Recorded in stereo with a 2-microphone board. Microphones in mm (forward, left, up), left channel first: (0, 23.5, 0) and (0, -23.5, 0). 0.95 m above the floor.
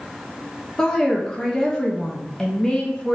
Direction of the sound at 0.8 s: 15° left (ahead or behind).